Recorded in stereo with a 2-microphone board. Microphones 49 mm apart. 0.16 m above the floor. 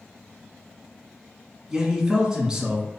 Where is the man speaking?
15° right (ahead or behind), 1.4 m.